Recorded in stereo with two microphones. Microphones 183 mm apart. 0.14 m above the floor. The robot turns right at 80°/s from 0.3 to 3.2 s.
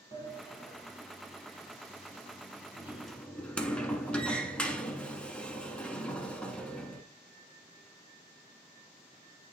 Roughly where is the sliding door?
Left.